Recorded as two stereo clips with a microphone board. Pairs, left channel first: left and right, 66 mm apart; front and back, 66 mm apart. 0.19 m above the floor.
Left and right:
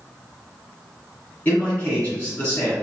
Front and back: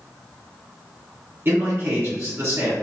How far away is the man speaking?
About 1.7 m.